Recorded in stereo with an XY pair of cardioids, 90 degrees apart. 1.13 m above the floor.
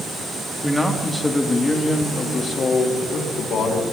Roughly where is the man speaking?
Ahead.